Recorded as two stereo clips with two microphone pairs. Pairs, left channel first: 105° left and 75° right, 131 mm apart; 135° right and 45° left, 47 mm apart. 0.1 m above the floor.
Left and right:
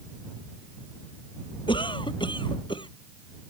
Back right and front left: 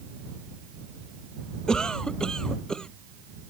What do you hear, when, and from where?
1.7 s a cough: 145° left